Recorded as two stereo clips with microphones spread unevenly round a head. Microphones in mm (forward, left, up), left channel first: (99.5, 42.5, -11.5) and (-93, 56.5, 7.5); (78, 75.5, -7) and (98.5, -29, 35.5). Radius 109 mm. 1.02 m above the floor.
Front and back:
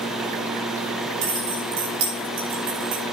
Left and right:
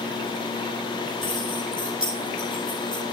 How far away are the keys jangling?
About 6.5 m.